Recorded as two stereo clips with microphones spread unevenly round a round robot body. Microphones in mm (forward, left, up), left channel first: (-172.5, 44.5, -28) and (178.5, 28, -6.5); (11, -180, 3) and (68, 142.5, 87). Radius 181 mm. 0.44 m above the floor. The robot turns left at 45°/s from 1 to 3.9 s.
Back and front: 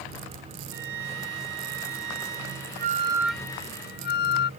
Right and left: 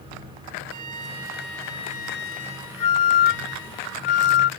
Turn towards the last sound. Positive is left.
turn(degrees=-120)